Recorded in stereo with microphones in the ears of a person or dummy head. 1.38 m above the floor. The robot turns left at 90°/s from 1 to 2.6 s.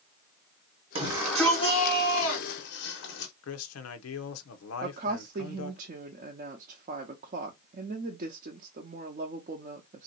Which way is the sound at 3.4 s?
85° left.